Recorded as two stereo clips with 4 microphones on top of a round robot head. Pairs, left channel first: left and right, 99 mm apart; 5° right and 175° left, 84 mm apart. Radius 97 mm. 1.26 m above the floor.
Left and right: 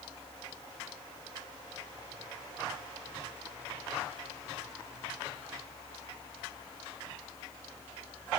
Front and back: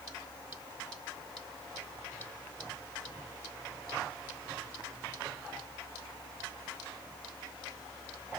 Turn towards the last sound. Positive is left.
No sound to turn to.